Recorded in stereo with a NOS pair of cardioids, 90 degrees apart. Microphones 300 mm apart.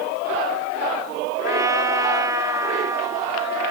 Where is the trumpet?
10° right.